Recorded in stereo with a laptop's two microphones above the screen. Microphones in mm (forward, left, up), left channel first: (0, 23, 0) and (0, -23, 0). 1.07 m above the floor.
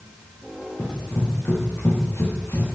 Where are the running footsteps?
70° left (ahead or behind), 5.5 m; by 2.8 s 80° left, 5 m.